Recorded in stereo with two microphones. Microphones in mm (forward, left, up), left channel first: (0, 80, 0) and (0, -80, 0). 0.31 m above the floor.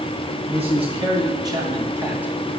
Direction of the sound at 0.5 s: 40° right (ahead or behind).